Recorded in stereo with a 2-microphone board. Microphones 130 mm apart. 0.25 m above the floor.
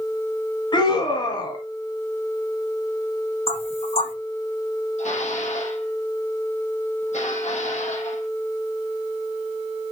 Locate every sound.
0.7 s a scream: 35° left (ahead or behind), 2 m
3.5 s knocking: 50° left (ahead or behind), 8 m
5.0 s dishes clattering: 60° left (ahead or behind), 7 m